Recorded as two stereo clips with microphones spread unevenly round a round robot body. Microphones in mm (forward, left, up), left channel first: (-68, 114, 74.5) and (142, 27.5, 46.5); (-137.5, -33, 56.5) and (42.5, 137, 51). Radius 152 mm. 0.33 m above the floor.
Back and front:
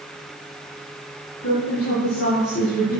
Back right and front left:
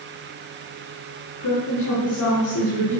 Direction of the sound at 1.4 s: 155° right.